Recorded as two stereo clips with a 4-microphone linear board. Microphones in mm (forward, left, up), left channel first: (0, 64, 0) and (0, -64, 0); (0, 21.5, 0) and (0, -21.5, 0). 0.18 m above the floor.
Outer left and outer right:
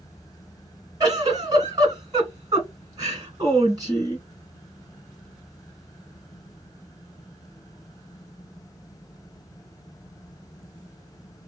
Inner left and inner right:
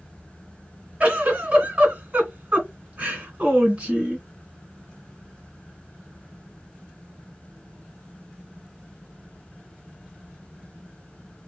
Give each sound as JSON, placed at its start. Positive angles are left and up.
{"t": 1.0, "sound": "a giggle", "side_deg": -30, "distance_m": 1.9}